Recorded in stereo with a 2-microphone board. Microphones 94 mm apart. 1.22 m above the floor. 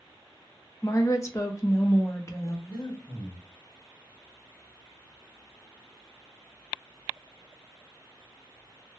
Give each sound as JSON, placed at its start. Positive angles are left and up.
{"t": 0.8, "sound": "a woman speaking", "side_deg": 35, "distance_m": 0.7}
{"t": 2.7, "sound": "breathing", "side_deg": 55, "distance_m": 1.1}